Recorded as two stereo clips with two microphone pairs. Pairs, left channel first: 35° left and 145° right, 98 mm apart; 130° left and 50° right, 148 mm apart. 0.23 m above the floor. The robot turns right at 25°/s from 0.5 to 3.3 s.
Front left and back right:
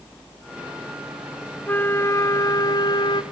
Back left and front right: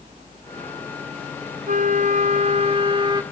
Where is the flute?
30° right, 0.9 m; by 3.2 s 10° left, 0.9 m.